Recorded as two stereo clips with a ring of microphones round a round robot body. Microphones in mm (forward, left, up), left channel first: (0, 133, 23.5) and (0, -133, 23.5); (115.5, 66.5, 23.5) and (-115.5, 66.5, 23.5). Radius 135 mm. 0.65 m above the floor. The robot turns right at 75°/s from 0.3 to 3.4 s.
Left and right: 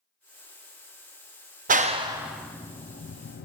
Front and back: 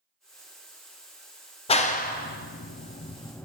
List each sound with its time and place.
1.7 s a clap: 50° right, 0.6 m; by 3.5 s 75° left, 0.6 m